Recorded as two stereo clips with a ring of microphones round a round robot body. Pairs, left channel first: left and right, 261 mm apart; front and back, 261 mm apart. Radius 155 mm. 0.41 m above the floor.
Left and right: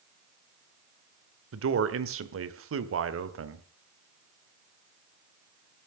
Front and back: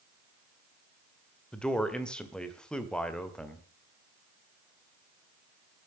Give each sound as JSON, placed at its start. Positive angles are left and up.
{"t": 1.5, "sound": "a man speaking", "azimuth_deg": -85, "distance_m": 1.8}